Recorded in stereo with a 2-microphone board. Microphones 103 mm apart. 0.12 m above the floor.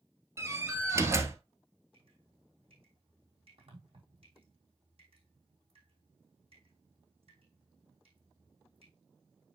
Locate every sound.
0.4 s a door slam: 25° right (ahead or behind), 1.5 m
1.9 s dripping: 65° right (ahead or behind), 4 m